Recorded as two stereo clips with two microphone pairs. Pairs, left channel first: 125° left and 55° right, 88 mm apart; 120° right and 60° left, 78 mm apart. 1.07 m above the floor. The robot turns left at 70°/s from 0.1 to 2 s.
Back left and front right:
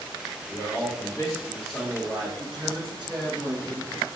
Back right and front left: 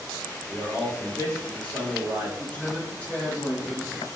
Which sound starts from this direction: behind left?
A man speaking, at 0.5 s.